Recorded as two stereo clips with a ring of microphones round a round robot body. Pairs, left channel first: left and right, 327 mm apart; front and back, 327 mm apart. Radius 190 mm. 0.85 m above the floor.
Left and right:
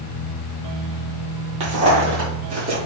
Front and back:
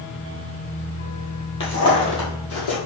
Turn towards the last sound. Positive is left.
turn(degrees=-20)